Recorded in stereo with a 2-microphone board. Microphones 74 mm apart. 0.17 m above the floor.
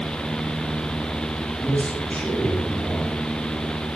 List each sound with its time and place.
1.6 s a man speaking: 15° left (ahead or behind), 5 m